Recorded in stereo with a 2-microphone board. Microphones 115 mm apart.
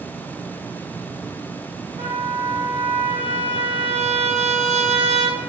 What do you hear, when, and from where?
2.0 s a trumpet: 60° right (ahead or behind), 3 m